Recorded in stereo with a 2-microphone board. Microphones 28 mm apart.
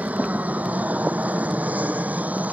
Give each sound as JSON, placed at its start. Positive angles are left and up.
{"t": 0.0, "sound": "an aircraft", "side_deg": -70}